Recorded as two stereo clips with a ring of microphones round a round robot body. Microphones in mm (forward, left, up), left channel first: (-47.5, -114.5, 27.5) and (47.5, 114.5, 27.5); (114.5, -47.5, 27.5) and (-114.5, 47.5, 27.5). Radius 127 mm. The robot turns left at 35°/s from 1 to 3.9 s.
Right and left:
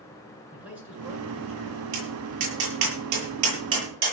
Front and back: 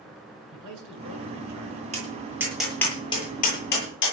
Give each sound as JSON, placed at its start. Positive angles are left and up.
{"t": 0.5, "sound": "a man speaking", "azimuth_deg": 150, "distance_m": 8.0}
{"t": 1.9, "sound": "tapping", "azimuth_deg": 90, "distance_m": 8.5}